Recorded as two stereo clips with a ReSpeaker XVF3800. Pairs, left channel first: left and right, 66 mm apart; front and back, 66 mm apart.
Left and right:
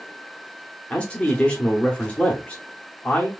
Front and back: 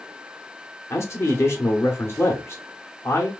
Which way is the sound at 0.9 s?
25° left.